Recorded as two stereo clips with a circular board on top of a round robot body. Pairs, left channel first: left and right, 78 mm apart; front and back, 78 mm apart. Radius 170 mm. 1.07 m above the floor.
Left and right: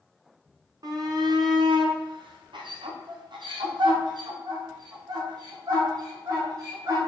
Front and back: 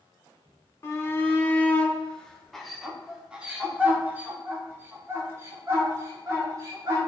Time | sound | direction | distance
0.8 | a shout | 55° right | 1.7 m